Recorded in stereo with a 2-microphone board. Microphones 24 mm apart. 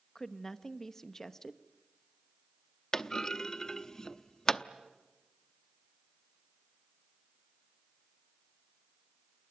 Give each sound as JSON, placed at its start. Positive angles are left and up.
{"t": 0.1, "sound": "a woman speaking", "side_deg": 20, "distance_m": 1.0}
{"t": 2.9, "sound": "a clunk", "side_deg": 20, "distance_m": 0.7}